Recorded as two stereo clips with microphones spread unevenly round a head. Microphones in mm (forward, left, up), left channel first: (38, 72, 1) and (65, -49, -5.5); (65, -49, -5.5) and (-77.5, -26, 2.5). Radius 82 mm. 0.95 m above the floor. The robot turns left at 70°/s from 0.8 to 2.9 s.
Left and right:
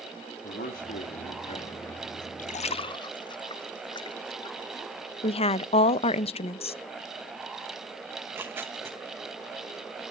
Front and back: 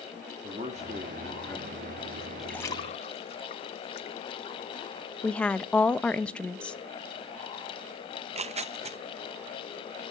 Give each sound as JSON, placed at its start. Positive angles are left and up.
{"t": 0.4, "sound": "a man speaking", "azimuth_deg": 115, "distance_m": 1.8}
{"t": 2.4, "sound": "a splash", "azimuth_deg": 85, "distance_m": 0.5}
{"t": 5.2, "sound": "a woman speaking", "azimuth_deg": 70, "distance_m": 0.6}
{"t": 8.2, "sound": "tearing paper", "azimuth_deg": -150, "distance_m": 0.7}